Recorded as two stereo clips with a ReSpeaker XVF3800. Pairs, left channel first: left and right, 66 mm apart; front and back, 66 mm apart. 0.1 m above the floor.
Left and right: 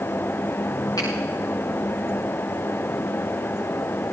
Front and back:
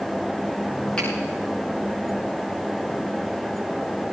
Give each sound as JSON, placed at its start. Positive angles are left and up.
{"t": 1.0, "sound": "a finger snap", "azimuth_deg": 75, "distance_m": 9.5}